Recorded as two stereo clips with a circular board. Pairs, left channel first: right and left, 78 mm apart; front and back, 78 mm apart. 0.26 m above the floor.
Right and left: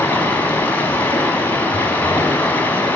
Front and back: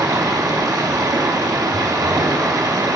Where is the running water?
150° right, 0.8 m.